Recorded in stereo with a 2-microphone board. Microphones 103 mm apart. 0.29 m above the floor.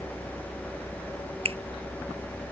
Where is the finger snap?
70° right (ahead or behind).